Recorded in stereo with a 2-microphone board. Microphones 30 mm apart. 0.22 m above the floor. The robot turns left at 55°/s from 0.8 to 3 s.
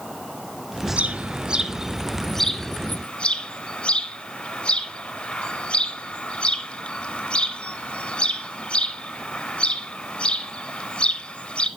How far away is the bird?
About 0.8 m.